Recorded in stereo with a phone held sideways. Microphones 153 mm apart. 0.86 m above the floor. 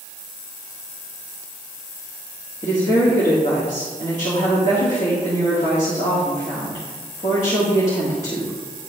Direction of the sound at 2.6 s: 50° left (ahead or behind).